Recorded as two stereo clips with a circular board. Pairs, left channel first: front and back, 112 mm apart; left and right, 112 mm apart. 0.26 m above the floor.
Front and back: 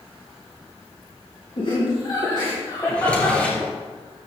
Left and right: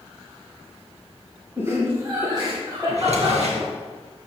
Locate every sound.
1.6 s laughter: 25° right, 3 m; by 3.4 s 55° right, 3.5 m
2.9 s a drawer: 80° right, 3 m